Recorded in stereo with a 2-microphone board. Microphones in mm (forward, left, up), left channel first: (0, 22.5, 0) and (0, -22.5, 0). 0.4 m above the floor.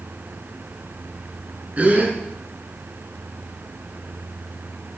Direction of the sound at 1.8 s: 35° right (ahead or behind).